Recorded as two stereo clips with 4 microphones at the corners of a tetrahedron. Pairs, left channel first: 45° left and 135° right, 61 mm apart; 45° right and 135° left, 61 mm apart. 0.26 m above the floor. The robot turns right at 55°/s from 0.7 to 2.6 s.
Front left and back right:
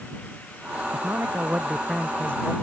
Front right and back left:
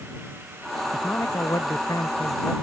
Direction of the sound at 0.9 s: 100° right.